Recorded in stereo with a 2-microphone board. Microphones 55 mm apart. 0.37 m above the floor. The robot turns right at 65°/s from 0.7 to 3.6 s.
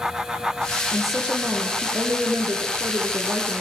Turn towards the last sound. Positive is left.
turn(degrees=-15)